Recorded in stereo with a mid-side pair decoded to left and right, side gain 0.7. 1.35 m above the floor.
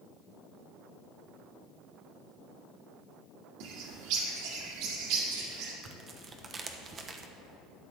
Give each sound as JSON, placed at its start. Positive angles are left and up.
{"t": 3.6, "sound": "a bird", "azimuth_deg": -70, "distance_m": 2.0}
{"t": 5.8, "sound": "tearing paper", "azimuth_deg": -30, "distance_m": 1.0}